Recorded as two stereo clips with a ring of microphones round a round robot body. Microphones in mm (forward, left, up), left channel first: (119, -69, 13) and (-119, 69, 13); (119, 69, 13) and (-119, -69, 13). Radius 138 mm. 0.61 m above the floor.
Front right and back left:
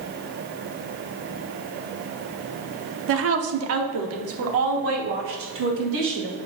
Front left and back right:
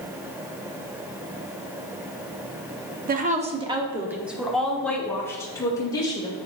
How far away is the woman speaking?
About 0.9 m.